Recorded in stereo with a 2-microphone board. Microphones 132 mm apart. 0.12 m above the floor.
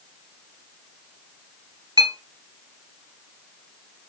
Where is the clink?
35° right (ahead or behind), 1.2 m.